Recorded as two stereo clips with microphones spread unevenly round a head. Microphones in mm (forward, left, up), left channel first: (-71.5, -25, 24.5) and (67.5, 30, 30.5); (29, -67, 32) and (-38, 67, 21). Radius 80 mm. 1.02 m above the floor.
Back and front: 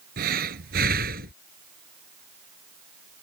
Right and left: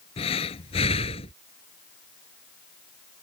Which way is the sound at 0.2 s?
10° right.